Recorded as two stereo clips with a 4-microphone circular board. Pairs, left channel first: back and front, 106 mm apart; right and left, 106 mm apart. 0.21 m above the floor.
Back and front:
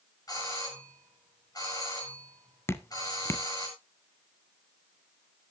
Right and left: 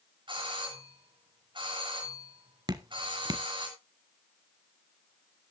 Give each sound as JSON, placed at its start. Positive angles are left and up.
{"t": 0.3, "sound": "a doorbell", "azimuth_deg": 130, "distance_m": 7.0}
{"t": 2.7, "sound": "dripping", "azimuth_deg": 125, "distance_m": 0.8}